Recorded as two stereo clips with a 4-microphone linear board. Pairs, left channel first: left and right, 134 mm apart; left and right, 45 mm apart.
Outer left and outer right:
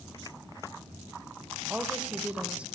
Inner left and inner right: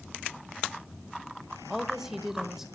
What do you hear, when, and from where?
1.7 s a woman speaking: 10° right (ahead or behind), 1.1 m